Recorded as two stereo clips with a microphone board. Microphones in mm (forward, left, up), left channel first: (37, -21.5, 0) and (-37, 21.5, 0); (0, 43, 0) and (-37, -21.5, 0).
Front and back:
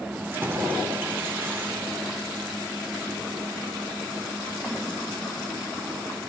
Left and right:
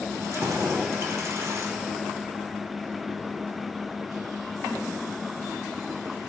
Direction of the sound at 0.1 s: 155° right.